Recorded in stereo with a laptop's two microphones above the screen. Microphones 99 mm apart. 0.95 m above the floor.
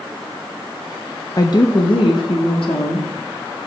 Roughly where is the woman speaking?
Left.